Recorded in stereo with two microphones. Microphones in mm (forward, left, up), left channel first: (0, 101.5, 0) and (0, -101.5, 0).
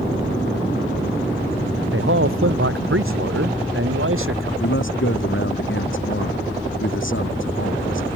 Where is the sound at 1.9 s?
80° right.